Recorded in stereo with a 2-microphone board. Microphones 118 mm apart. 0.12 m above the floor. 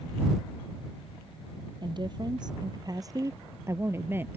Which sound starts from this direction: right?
A woman speaking, at 1.8 s.